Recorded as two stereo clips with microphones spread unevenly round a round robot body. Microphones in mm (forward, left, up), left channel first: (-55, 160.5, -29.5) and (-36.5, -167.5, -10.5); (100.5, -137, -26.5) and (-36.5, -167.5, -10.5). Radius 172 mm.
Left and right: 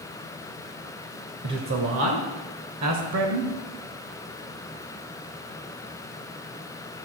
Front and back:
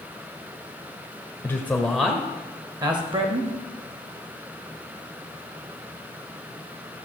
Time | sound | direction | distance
1.4 | a man speaking | 45° right | 1.1 m